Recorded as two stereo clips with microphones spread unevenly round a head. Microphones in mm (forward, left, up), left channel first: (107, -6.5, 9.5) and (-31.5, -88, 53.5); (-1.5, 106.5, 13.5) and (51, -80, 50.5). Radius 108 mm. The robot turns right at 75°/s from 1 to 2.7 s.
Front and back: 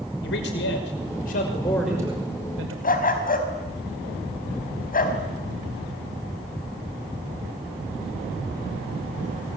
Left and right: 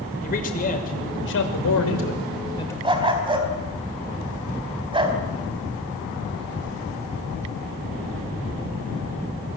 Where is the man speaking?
55° left, 5.5 m; by 2.7 s 175° right, 5.5 m.